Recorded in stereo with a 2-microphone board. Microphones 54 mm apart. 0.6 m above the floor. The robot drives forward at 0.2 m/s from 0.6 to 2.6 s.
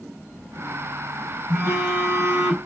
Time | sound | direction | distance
1.5 | a phone buzzing | 50° right (ahead or behind) | 0.8 m